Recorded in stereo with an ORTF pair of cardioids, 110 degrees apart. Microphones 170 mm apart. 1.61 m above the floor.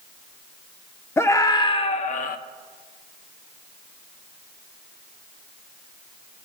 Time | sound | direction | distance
1.2 | a scream | 15° left | 1.0 m